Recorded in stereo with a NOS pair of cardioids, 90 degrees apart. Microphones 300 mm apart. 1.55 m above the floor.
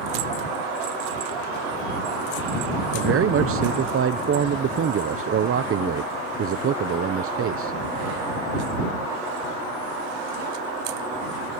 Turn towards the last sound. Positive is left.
turn(degrees=-45)